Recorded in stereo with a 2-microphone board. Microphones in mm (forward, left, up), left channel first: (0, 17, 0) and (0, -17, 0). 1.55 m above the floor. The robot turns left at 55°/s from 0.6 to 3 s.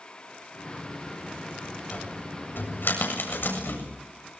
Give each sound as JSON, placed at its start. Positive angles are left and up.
{"t": 1.9, "sound": "a cupboard door", "side_deg": 40, "distance_m": 7.5}